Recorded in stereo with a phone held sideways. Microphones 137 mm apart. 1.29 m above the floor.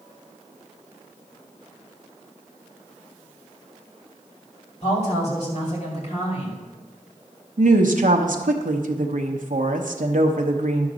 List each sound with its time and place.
4.8 s a woman speaking: 55° left (ahead or behind), 2.5 m
7.6 s a woman speaking: 75° right (ahead or behind), 0.8 m